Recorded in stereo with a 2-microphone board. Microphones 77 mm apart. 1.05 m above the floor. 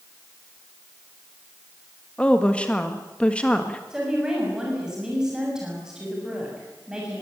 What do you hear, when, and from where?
2.2 s a woman speaking: 15° left (ahead or behind), 1.7 m
3.9 s a woman speaking: 10° right (ahead or behind), 6.5 m